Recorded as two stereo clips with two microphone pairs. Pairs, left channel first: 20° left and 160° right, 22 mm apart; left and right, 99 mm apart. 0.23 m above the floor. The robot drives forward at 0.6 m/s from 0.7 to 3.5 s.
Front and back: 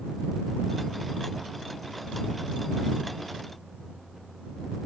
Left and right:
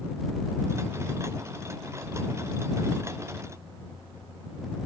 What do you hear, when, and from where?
Only background noise.